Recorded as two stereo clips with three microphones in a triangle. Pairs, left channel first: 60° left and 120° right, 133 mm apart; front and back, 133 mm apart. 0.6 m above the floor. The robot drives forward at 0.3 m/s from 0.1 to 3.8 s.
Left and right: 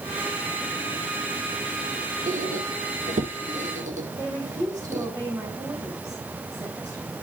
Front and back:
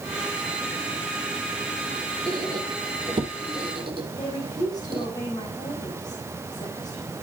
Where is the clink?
I don't hear a clink.